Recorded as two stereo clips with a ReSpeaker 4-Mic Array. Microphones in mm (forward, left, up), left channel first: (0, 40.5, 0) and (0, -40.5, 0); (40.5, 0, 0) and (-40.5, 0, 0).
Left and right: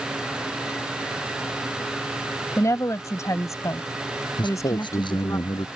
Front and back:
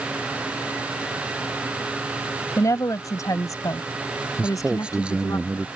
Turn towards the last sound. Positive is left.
turn(degrees=105)